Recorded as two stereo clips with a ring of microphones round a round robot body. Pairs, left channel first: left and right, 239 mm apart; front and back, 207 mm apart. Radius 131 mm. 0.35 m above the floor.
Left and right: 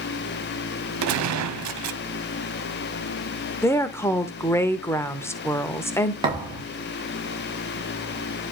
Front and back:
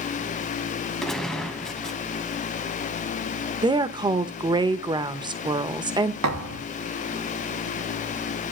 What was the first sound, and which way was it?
A gunshot, 90° right.